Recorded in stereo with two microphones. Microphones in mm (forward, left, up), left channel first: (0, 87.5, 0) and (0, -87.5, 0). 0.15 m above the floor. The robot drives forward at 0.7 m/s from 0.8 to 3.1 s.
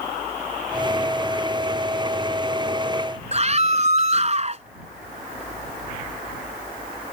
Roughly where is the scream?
Right.